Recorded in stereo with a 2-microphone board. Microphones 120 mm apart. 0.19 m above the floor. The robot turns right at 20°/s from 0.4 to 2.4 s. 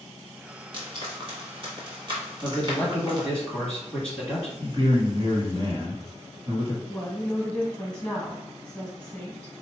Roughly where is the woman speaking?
Centre.